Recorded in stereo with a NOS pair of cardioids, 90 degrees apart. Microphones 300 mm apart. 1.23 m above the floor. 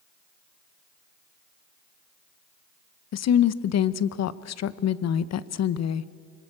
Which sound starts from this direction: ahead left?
A woman speaking, at 3.1 s.